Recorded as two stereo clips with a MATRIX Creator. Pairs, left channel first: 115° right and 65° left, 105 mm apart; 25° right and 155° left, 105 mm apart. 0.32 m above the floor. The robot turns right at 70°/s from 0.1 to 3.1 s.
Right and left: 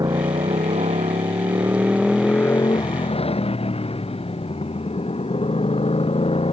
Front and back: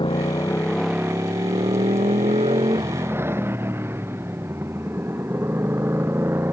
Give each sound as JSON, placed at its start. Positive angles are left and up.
{"t": 0.0, "sound": "a motorcycle", "azimuth_deg": 15}